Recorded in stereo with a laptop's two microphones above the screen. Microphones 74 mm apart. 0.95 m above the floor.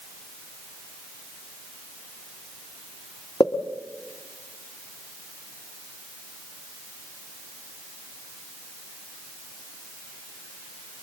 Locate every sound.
3.4 s a pop: 60° left (ahead or behind), 1.7 m